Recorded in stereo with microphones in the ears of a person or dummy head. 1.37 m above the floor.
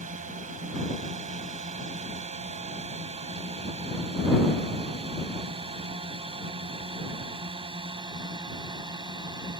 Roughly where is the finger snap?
No finger snap in this recording.